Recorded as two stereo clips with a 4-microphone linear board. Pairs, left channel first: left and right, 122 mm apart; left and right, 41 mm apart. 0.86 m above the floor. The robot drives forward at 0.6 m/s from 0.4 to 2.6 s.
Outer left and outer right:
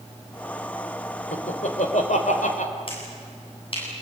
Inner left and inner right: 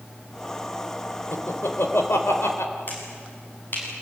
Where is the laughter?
70° left (ahead or behind), 4 m; by 2.7 s 75° left (ahead or behind), 3.5 m.